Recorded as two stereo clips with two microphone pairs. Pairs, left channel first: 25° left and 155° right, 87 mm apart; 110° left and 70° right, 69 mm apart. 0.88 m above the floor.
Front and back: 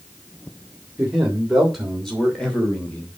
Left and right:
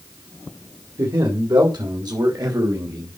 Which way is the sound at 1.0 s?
70° right.